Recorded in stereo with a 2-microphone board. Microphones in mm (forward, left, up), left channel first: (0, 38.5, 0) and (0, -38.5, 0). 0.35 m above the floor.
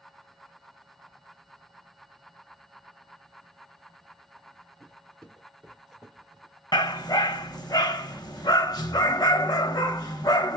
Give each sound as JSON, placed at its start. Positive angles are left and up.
{"t": 4.8, "sound": "footsteps", "side_deg": 15, "distance_m": 2.0}
{"t": 6.7, "sound": "a dog barking", "side_deg": 60, "distance_m": 0.7}